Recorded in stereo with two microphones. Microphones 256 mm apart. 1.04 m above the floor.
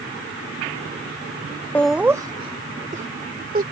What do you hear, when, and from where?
1.8 s laughter: 5° left (ahead or behind); by 3.6 s 35° right (ahead or behind)